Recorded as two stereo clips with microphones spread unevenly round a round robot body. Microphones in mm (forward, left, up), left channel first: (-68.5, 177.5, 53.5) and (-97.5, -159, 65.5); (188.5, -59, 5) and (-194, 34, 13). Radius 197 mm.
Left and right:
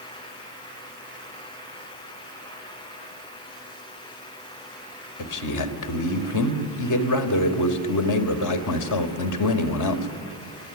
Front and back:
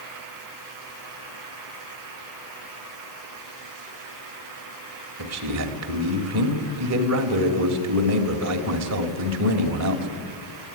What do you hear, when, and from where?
5.2 s a man speaking: 115° left, 2.5 m